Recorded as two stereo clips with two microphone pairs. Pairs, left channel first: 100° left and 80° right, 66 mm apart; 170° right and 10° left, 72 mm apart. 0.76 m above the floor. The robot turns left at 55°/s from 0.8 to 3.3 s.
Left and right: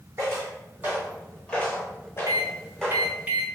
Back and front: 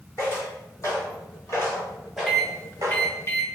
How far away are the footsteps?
About 1.6 m.